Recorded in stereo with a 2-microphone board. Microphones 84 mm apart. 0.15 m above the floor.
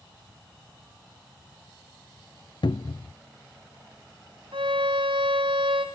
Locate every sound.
2.6 s a cupboard door: 65° left (ahead or behind), 0.9 m
4.5 s a violin: 90° right, 4.5 m